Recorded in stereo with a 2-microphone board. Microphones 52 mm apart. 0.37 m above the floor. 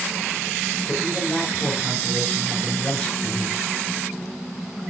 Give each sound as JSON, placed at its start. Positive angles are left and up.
{"t": 0.9, "sound": "a man speaking", "side_deg": 40, "distance_m": 5.5}